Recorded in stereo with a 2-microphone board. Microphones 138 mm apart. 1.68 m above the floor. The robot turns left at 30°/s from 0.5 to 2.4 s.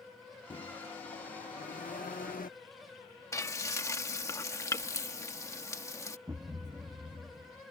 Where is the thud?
25° right (ahead or behind).